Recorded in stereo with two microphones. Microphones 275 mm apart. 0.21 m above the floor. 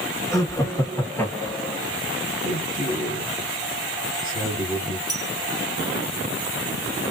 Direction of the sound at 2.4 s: 30° left (ahead or behind).